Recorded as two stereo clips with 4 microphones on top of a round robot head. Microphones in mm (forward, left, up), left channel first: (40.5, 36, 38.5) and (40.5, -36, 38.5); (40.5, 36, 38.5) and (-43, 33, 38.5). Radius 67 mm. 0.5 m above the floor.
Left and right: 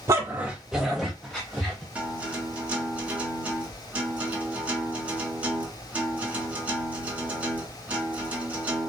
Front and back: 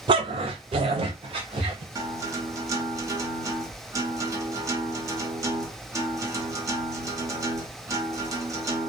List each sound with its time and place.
0.1 s a dog barking: 145° right, 0.5 m; by 1.9 s 165° left, 1.8 m
1.9 s a guitar: 155° right, 1.4 m